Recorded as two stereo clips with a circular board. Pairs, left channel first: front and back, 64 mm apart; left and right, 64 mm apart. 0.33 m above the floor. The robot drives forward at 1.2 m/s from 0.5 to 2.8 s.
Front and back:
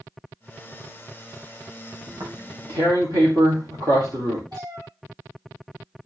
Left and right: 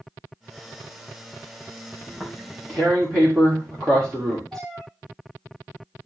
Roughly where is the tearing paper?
Behind.